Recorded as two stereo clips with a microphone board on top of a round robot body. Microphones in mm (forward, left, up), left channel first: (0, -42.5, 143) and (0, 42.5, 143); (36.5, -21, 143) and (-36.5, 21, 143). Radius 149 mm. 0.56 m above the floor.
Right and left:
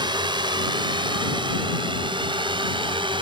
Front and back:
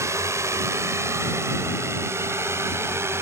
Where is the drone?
100° left; by 3.2 s 95° left.